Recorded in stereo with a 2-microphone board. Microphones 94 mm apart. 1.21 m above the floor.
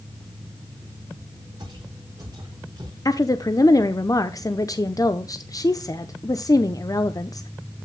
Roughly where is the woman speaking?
Left.